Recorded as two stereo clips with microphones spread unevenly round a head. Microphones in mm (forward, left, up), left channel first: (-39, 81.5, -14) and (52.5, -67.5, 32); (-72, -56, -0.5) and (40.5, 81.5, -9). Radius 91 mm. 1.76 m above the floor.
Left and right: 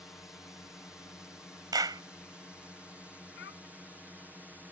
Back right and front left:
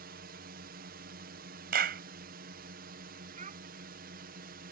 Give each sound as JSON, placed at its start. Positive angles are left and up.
{"t": 0.0, "sound": "a drone", "azimuth_deg": 40}
{"t": 1.7, "sound": "a clap", "azimuth_deg": 10}
{"t": 3.4, "sound": "a child speaking", "azimuth_deg": 100}